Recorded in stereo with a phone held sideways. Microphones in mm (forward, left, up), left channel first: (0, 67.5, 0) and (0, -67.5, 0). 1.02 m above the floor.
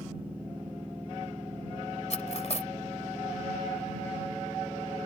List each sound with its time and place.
0.0 s a machine running: 10° right (ahead or behind)
2.1 s cutlery clinking: 55° left (ahead or behind)